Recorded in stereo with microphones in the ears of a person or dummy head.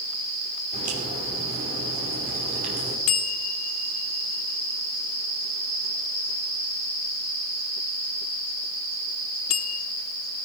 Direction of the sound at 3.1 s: 35° left (ahead or behind).